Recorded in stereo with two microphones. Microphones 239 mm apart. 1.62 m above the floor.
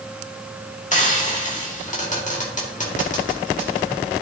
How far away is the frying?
About 2 m.